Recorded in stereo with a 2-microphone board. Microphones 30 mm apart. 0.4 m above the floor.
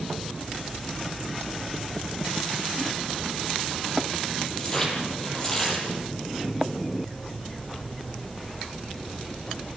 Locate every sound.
4.6 s tearing paper: 20° left (ahead or behind), 8.5 m